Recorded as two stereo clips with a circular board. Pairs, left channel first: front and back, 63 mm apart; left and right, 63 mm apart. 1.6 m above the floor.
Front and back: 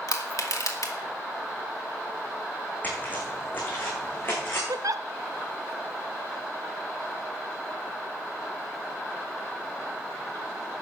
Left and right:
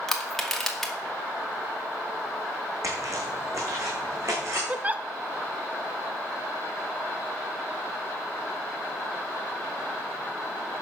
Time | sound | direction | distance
0.1 | crushing | 5° left | 2.0 m
2.8 | footsteps | 65° right | 5 m
4.7 | a giggle | 155° right | 0.6 m